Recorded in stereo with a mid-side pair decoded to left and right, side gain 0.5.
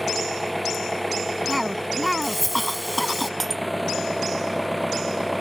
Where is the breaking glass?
25° right.